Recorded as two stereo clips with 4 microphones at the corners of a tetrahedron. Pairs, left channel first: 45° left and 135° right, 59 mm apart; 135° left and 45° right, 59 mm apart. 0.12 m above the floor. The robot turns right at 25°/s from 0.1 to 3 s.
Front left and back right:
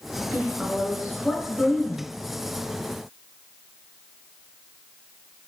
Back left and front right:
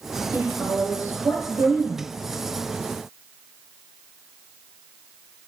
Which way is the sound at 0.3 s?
85° right.